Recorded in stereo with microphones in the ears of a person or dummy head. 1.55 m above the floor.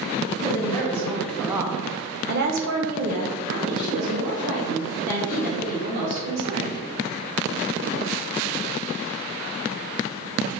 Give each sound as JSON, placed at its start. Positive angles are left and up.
{"t": 0.4, "sound": "a woman speaking", "side_deg": 25, "distance_m": 1.1}